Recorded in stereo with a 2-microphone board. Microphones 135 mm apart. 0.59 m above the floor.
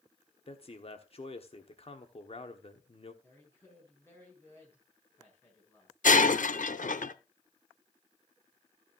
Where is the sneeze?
I don't hear a sneeze.